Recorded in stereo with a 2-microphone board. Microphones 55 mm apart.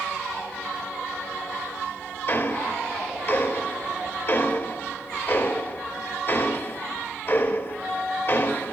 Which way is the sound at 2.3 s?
45° left (ahead or behind).